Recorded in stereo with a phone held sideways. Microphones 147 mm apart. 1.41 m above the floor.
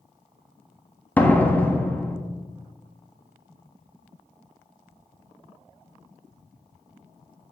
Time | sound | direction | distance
1.2 | a door slam | 10° left (ahead or behind) | 1.3 m